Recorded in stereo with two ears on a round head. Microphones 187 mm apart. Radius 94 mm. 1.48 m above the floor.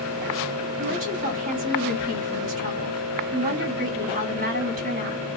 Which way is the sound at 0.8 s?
50° right (ahead or behind).